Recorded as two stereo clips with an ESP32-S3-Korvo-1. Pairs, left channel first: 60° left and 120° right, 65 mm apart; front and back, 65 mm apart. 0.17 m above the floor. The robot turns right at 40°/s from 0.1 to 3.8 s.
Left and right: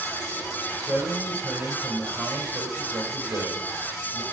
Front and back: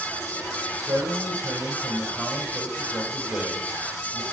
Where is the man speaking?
145° left, 4.5 m; by 4.2 s 95° right, 4.5 m.